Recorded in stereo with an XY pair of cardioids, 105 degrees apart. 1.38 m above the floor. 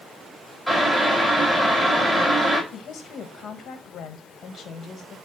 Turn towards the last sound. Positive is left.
turn(degrees=60)